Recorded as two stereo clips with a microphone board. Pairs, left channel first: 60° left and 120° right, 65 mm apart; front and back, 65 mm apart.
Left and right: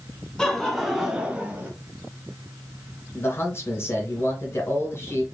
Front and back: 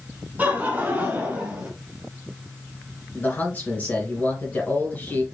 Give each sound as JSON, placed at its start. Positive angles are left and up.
{"t": 0.4, "sound": "laughter", "azimuth_deg": 135, "distance_m": 1.5}
{"t": 3.1, "sound": "a man speaking", "azimuth_deg": 50, "distance_m": 2.0}